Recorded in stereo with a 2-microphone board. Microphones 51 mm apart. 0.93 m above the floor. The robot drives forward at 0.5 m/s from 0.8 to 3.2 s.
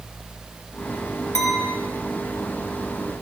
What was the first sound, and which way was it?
A clink, 75° left (ahead or behind).